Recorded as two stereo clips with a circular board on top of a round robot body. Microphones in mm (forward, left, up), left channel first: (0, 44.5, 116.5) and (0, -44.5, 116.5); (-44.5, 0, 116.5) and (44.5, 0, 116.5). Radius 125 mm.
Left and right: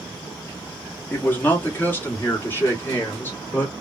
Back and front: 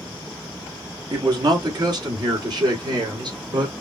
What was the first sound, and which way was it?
A man speaking, 25° left.